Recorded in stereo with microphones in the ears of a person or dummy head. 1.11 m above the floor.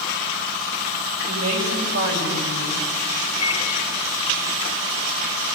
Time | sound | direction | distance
1.2 | a woman speaking | 75° right (ahead or behind) | 6 m
3.4 | a microwave | 30° left (ahead or behind) | 1.9 m